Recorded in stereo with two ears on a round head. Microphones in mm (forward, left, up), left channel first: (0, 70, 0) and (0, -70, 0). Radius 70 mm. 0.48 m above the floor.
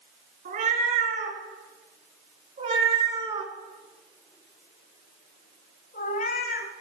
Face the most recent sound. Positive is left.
turn(degrees=65)  # may be behind; listen again after turning